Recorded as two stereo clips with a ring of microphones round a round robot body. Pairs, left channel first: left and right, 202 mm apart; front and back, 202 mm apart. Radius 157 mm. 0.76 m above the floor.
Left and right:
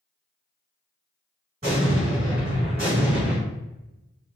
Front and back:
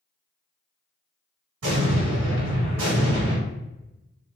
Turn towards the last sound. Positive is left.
turn(degrees=-160)